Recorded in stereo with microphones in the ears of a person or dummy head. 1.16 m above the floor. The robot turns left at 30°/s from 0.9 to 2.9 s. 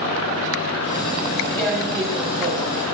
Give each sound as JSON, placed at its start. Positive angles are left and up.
{"t": 1.6, "sound": "tearing paper", "azimuth_deg": 15, "distance_m": 1.9}